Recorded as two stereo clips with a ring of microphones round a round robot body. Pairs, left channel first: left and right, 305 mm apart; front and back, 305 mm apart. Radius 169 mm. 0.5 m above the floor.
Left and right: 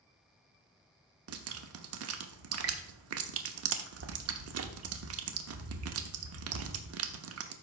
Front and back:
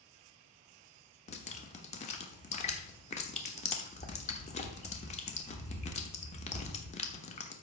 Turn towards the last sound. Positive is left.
turn(degrees=-65)